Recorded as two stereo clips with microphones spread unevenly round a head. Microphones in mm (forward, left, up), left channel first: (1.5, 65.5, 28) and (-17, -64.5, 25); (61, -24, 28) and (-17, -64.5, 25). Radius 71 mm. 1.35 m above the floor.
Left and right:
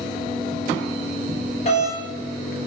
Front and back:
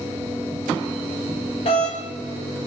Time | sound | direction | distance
1.6 | a doorbell | 40° left | 1.5 m